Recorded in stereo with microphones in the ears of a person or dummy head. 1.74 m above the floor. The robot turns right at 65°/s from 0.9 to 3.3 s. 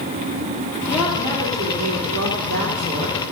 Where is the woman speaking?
175° left, 2.5 m; by 3.2 s 35° right, 2.5 m.